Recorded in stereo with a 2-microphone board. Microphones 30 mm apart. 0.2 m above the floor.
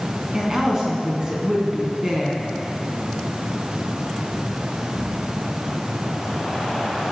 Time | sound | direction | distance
0.3 | a woman speaking | 30° right (ahead or behind) | 2.5 m